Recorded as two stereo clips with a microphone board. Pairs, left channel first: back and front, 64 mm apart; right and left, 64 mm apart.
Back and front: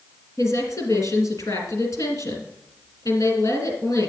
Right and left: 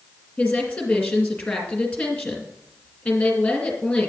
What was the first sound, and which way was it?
A woman speaking, 165° right.